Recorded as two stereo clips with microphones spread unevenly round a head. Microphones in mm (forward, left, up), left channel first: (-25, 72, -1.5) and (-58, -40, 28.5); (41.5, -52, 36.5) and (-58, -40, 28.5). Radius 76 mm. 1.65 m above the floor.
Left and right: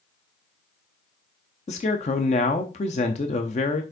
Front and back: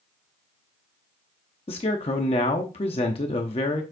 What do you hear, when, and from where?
1.7 s a man speaking: 35° left, 0.7 m